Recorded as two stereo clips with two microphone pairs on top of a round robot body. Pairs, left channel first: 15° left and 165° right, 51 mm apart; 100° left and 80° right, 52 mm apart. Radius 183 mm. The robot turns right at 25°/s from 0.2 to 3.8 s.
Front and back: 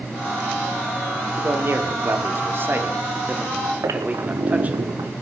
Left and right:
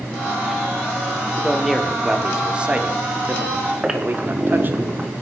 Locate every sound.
1.4 s a man speaking: 175° right, 1.9 m; by 4.8 s 115° right, 1.9 m
3.8 s a squeak: 155° right, 1.0 m